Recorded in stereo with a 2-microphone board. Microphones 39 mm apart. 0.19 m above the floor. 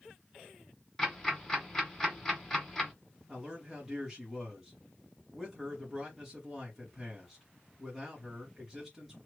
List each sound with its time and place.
1.0 s ticking: 15° left (ahead or behind), 1.6 m
3.3 s a man speaking: centre (ahead or behind), 1.8 m